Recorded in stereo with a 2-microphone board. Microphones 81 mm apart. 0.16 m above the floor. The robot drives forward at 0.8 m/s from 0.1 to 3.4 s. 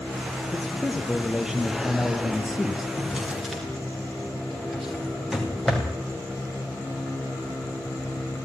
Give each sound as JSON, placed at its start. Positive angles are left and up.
{"t": 0.5, "sound": "a man speaking", "side_deg": -5, "distance_m": 5.0}
{"t": 3.0, "sound": "a drawer", "side_deg": 0, "distance_m": 7.5}